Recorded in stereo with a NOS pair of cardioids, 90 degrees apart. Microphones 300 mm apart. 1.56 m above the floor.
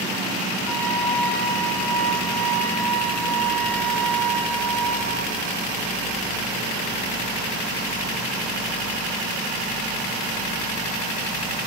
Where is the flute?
5° left, 2.5 m.